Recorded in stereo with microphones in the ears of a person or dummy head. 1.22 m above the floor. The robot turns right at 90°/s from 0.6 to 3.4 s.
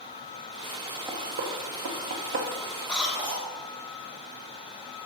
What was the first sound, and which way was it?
Knocking, 10° right (ahead or behind).